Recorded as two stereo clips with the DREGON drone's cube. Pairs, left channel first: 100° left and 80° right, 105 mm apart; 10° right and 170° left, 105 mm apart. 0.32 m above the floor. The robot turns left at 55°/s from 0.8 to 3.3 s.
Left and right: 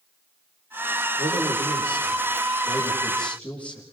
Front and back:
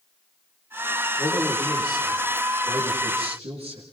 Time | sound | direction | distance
1.2 | a man speaking | 65° right | 8 m